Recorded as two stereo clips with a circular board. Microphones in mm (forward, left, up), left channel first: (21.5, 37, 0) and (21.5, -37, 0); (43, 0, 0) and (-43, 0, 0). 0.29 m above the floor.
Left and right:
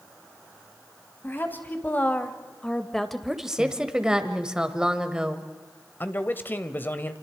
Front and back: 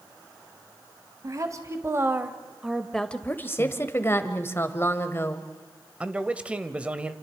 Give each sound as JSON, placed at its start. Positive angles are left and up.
{"t": 1.2, "sound": "a woman speaking", "azimuth_deg": 145, "distance_m": 1.7}
{"t": 3.6, "sound": "a woman speaking", "azimuth_deg": -20, "distance_m": 1.3}
{"t": 6.0, "sound": "a man speaking", "azimuth_deg": 120, "distance_m": 1.1}